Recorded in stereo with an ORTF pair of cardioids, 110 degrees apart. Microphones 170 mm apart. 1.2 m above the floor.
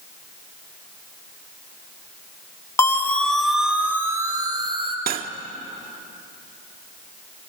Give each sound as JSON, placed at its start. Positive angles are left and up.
{"t": 2.8, "sound": "a siren", "azimuth_deg": 15, "distance_m": 2.5}
{"t": 5.1, "sound": "cutlery clinking", "azimuth_deg": -65, "distance_m": 1.6}